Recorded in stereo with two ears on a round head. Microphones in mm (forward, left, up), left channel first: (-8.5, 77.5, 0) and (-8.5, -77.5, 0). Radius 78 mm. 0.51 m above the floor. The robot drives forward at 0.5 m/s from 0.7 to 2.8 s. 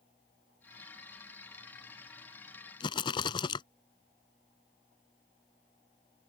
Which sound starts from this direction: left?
A rattle, at 2.8 s.